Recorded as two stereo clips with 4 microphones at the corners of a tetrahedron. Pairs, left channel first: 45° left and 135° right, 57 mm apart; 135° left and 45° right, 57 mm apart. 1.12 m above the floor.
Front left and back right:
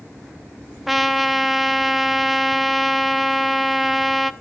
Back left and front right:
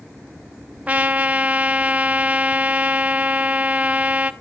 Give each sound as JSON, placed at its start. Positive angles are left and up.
{"t": 0.9, "sound": "a trumpet", "azimuth_deg": -50, "distance_m": 0.7}